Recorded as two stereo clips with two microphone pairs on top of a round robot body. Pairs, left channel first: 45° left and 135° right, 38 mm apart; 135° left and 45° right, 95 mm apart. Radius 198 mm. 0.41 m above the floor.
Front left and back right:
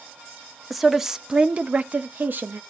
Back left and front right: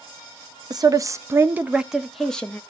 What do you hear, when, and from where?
0.7 s a woman speaking: 40° right, 1.0 m; by 2.6 s 150° right, 1.0 m